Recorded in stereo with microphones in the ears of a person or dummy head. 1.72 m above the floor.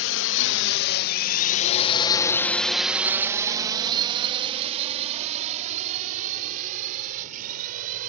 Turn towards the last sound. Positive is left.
turn(degrees=-50)  # may be behind; listen again after turning